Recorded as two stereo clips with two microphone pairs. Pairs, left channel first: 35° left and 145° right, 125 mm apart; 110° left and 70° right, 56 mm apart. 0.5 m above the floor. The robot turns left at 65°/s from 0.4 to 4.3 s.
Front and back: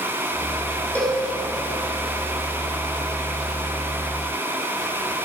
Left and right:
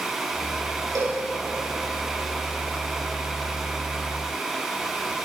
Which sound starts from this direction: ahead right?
A cowbell, at 0.9 s.